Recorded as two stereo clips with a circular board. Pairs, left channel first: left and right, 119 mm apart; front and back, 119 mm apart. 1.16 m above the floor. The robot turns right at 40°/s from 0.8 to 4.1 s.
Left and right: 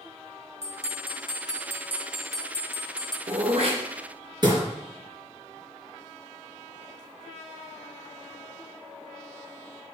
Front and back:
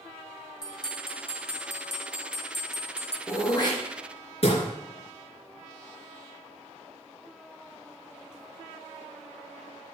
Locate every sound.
0.6 s a bell: 60° right, 0.8 m; by 3.2 s 35° left, 0.8 m
3.3 s throat clearing: 70° right, 3.5 m; by 4.6 s 35° right, 3.5 m